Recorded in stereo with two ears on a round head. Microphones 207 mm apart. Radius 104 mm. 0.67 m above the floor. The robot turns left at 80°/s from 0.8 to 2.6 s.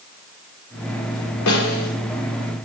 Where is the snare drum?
90° left, 1.9 m; by 1.9 s 60° left, 1.9 m.